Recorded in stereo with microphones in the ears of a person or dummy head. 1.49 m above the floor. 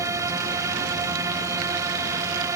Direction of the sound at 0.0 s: 15° right (ahead or behind).